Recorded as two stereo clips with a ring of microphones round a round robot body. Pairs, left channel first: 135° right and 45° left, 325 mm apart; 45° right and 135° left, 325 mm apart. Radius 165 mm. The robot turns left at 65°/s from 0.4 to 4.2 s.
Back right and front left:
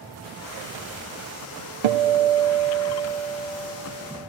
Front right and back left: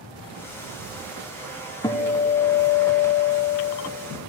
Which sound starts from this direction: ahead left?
A guitar, at 1.8 s.